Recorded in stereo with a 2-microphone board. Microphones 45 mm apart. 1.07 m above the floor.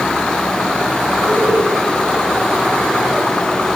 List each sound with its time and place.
1.3 s laughter: 65° right (ahead or behind), 10 m